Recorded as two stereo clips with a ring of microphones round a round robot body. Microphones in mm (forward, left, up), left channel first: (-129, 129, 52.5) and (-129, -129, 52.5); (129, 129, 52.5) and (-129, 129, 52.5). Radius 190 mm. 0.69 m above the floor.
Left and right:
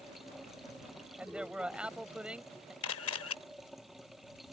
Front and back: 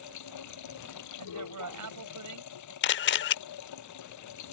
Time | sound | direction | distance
0.0 | running water | straight ahead | ?
1.2 | a man speaking | 175° right | ?
2.8 | a camera shutter | 40° left | ?